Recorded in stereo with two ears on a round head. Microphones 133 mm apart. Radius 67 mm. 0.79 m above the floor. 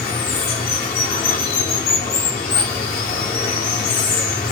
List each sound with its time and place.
0.0 s running water: 65° left (ahead or behind), 1.0 m